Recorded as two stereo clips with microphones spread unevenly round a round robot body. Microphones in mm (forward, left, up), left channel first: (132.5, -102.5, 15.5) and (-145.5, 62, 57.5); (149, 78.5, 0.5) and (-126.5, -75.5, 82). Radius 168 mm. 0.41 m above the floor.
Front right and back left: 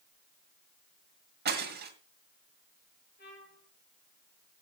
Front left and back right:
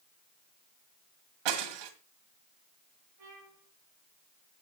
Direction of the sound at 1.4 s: 145° right.